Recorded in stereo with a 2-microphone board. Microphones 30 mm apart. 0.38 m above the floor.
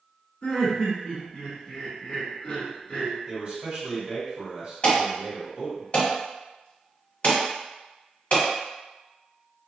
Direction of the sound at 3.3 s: 45° right (ahead or behind).